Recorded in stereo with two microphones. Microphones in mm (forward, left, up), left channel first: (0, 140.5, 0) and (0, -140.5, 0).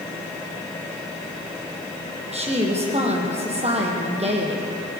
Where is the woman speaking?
20° right (ahead or behind), 4.5 m.